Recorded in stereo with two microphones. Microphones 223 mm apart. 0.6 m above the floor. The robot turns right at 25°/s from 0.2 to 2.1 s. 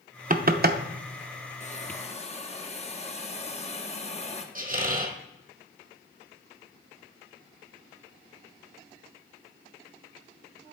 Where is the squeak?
40° right (ahead or behind), 1.1 m.